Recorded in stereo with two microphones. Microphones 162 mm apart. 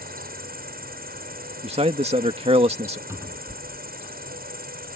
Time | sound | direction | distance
0.0 | an insect | 65° right (ahead or behind) | ?
1.6 | a man speaking | 35° right (ahead or behind) | ?
3.1 | a cupboard door | 15° right (ahead or behind) | ?